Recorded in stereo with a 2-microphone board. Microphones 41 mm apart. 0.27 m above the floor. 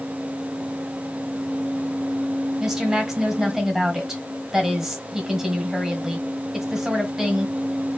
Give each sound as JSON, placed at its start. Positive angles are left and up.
{"t": 2.6, "sound": "a woman speaking", "side_deg": -10, "distance_m": 1.5}